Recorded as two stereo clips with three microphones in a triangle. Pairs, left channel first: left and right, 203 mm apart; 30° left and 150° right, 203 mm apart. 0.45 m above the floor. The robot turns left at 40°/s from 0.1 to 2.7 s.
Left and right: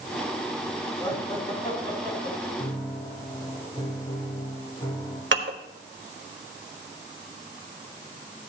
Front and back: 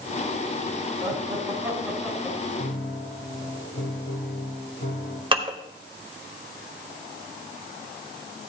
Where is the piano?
40° left, 4 m; by 5.2 s 35° left, 4 m.